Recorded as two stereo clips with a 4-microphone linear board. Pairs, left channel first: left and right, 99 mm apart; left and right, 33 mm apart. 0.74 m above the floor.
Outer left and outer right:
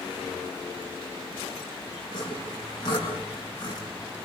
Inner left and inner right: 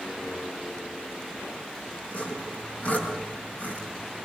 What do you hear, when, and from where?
2.1 s sawing: 45° left (ahead or behind), 6.5 m